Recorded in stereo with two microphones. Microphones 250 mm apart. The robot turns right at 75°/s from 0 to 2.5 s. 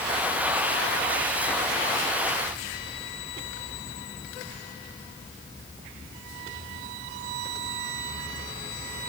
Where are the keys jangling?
No keys jangling in this recording.